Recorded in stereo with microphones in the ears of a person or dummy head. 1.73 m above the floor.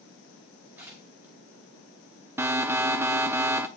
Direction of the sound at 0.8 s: 10° right (ahead or behind).